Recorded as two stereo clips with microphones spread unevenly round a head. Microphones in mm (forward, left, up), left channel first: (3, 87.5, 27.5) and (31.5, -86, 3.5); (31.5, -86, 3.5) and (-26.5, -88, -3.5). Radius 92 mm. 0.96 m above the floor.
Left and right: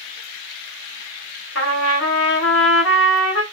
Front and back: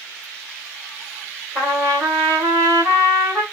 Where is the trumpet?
115° left, 1.6 m.